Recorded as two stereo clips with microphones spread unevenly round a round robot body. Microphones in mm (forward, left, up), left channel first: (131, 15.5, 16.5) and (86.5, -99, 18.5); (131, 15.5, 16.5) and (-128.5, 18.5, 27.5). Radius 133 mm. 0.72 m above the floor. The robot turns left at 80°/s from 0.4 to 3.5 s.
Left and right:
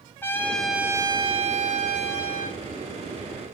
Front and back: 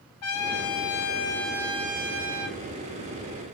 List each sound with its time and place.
0.2 s a trumpet: 5° right, 1.5 m; by 2.6 s 175° right, 1.5 m